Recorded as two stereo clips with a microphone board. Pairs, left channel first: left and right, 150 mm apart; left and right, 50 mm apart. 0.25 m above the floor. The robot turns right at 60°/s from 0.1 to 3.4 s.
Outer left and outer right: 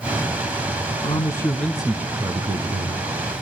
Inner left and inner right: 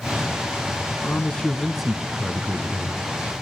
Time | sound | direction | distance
1.0 | a man speaking | 135° left | 1.9 m